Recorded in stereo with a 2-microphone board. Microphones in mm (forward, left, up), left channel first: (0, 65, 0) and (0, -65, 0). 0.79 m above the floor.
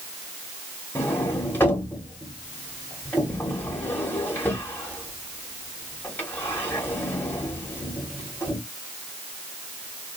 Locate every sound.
0.9 s a sliding door: 15° left (ahead or behind), 0.9 m